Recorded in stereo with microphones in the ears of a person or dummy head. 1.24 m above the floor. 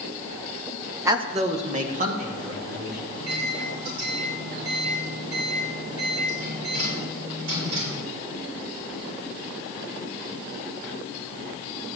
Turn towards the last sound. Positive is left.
turn(degrees=-80)